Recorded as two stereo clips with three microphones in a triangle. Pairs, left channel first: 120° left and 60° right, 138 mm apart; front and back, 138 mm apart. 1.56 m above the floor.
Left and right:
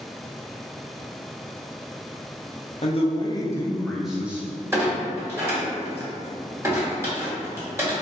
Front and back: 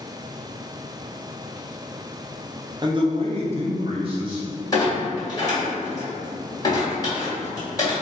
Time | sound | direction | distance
2.8 | a man speaking | 135° left | 0.6 m
4.7 | a clunk | 15° right | 1.4 m